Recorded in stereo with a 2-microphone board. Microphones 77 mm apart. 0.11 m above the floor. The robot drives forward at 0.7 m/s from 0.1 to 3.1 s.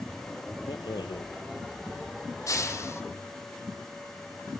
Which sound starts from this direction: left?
A rattle, at 0.7 s.